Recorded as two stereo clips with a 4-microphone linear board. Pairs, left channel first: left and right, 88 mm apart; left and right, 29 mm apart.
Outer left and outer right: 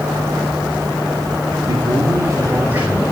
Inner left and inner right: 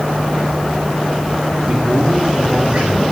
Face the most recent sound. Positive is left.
turn(degrees=-15)  # may be behind; listen again after turning